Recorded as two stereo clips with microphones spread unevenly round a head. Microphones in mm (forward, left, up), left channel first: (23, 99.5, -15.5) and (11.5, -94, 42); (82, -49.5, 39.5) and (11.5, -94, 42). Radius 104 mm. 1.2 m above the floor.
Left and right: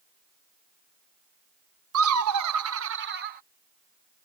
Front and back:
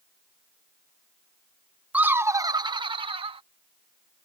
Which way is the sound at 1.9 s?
75° right.